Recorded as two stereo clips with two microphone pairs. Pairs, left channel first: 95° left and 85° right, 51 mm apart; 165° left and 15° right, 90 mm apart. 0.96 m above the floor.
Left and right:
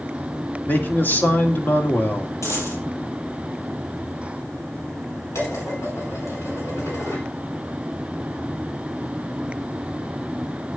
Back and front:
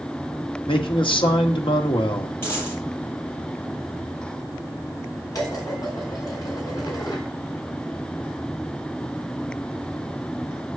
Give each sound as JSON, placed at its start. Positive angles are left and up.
{"t": 0.7, "sound": "a man speaking", "azimuth_deg": 145, "distance_m": 1.8}
{"t": 2.4, "sound": "a dropped coin", "azimuth_deg": 100, "distance_m": 8.0}
{"t": 5.3, "sound": "dishes clattering", "azimuth_deg": 115, "distance_m": 6.5}